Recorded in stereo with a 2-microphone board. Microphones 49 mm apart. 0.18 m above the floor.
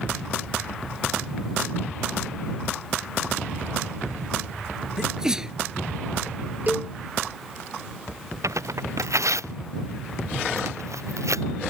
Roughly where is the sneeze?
Centre.